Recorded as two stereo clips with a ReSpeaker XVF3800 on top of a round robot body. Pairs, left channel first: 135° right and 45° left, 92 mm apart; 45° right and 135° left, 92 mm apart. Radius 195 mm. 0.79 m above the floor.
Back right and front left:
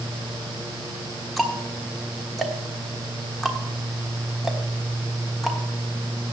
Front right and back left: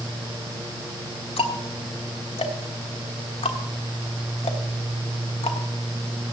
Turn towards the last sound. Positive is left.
turn(degrees=-45)